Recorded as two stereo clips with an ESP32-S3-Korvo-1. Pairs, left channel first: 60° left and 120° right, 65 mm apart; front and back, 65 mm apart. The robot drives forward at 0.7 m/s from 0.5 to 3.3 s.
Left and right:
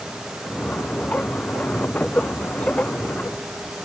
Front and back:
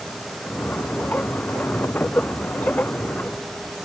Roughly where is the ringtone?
No ringtone in this recording.